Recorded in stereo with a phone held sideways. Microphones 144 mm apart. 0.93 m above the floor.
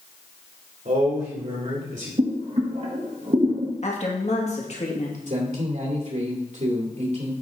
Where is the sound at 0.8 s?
65° right (ahead or behind), 2.5 m.